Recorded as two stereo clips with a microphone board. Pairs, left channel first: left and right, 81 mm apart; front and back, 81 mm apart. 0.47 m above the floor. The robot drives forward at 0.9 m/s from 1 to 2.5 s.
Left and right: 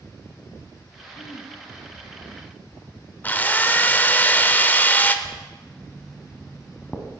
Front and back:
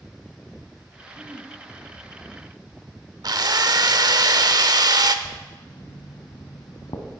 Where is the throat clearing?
105° left, 0.8 m; by 1.5 s 125° left, 1.0 m.